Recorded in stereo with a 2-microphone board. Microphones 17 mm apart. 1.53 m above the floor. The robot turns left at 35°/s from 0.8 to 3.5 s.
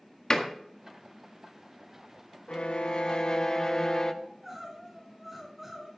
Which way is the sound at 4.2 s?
5° right (ahead or behind).